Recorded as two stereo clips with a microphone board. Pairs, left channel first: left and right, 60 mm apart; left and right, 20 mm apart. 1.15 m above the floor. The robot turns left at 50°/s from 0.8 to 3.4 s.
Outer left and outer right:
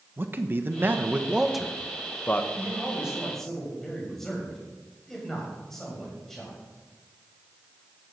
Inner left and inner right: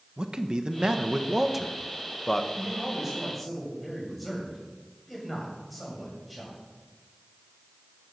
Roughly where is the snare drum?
I don't hear a snare drum.